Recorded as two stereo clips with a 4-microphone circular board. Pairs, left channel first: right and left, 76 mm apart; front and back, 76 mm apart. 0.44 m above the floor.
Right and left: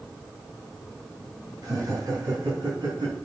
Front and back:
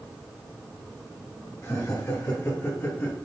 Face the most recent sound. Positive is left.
turn(degrees=65)